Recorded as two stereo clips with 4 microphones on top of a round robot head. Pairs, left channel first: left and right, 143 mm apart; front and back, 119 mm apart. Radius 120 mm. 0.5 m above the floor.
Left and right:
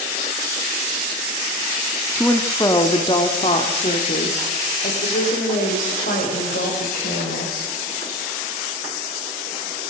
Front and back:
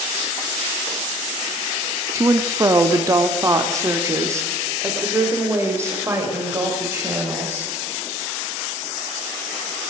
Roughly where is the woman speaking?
Behind left.